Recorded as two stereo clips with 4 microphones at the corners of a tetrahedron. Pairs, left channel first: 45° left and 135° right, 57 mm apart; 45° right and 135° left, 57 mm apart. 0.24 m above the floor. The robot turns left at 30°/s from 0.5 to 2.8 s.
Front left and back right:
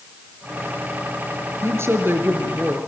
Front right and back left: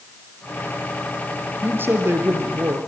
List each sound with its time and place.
1.6 s a woman speaking: 170° right, 3.5 m; by 2.8 s 155° left, 3.5 m